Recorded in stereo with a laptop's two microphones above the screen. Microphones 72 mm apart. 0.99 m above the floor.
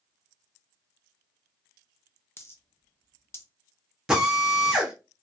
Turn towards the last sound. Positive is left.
turn(degrees=-10)  # may be behind; listen again after turning